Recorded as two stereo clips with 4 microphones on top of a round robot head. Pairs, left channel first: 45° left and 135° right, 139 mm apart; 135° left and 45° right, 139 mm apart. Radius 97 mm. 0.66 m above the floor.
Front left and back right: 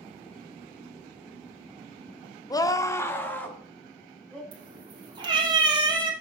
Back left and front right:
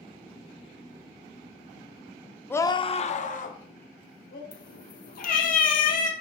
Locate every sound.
2.5 s a scream: 70° left, 0.8 m; by 4.4 s 130° left, 2.5 m
4.5 s a cat meowing: 165° left, 2.5 m